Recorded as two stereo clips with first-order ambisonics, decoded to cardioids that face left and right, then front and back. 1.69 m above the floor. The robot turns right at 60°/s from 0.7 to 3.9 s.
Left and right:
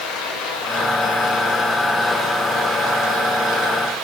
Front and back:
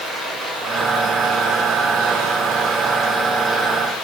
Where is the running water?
90° left, 6 m; by 4.0 s 75° right, 6 m.